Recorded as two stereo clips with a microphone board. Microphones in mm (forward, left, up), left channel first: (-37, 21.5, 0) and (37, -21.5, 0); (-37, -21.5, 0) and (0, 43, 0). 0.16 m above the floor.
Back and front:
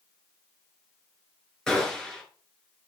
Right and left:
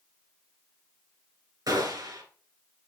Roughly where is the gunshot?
Left.